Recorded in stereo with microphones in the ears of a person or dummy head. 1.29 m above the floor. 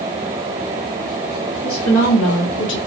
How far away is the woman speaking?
About 2 m.